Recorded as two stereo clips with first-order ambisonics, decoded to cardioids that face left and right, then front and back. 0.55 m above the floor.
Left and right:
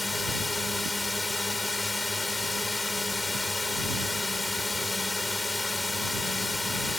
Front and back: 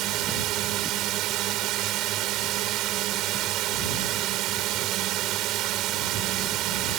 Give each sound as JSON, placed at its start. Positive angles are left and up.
{"t": 0.0, "sound": "a drone", "azimuth_deg": 170}